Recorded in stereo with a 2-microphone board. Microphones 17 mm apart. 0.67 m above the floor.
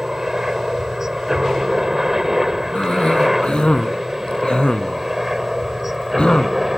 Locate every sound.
0.0 s a helicopter: 30° right (ahead or behind); by 6.8 s 15° right (ahead or behind)
2.8 s a cough: 75° left (ahead or behind)